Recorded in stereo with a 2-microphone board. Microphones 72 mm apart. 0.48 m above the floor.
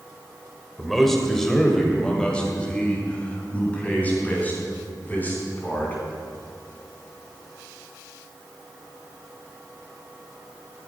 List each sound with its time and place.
0.8 s a man speaking: centre (ahead or behind), 1.9 m; by 5.9 s 25° left (ahead or behind), 4.5 m